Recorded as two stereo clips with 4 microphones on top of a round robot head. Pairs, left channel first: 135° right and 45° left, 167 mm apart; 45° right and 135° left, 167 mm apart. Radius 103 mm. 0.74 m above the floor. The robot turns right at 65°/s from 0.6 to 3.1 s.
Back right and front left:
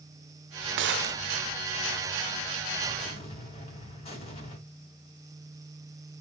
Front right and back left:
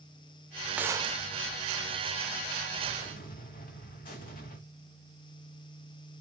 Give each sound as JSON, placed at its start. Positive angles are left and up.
{"t": 0.8, "sound": "a gunshot", "azimuth_deg": 50, "distance_m": 0.5}
{"t": 3.0, "sound": "an explosion", "azimuth_deg": -90, "distance_m": 2.5}